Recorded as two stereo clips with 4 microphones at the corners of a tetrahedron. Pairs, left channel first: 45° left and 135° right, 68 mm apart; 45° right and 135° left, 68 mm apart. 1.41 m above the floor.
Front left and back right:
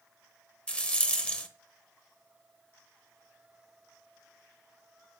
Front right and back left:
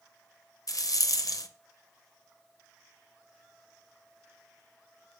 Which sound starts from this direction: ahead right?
A rattle, at 0.7 s.